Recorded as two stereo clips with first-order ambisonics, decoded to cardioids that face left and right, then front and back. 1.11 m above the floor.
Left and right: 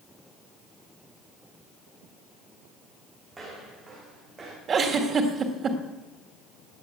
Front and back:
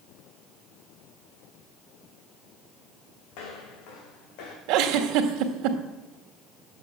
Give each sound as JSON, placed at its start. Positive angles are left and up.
{"t": 3.3, "sound": "footsteps", "azimuth_deg": -10, "distance_m": 4.0}
{"t": 4.7, "sound": "a giggle", "azimuth_deg": -155, "distance_m": 1.6}